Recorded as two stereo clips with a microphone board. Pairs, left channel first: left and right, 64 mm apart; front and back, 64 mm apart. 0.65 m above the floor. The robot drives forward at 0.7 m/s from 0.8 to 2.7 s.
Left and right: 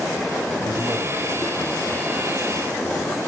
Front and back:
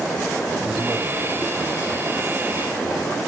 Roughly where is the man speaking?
Left.